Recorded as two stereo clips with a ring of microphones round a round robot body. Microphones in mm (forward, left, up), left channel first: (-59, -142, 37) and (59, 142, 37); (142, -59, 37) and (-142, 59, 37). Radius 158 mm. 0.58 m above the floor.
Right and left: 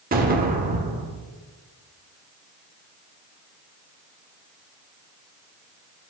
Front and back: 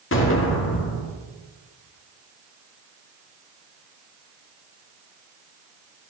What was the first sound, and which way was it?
An explosion, 15° left.